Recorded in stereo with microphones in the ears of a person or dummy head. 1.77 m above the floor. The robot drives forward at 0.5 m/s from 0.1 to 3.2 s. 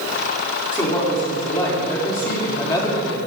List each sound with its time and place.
0.7 s a woman speaking: 10° left (ahead or behind), 5 m; by 3.2 s 15° left (ahead or behind), 4 m